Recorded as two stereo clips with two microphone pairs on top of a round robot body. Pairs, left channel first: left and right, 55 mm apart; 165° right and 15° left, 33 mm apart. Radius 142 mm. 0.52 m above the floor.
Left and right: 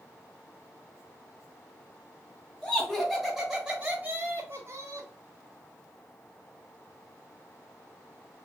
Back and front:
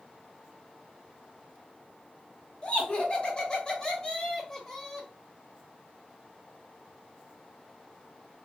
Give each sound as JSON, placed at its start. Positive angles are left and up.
{"t": 2.6, "sound": "laughter", "azimuth_deg": 150, "distance_m": 1.6}